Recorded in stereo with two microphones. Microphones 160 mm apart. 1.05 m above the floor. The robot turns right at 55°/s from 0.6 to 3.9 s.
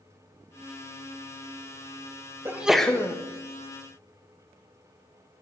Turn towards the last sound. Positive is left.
turn(degrees=65)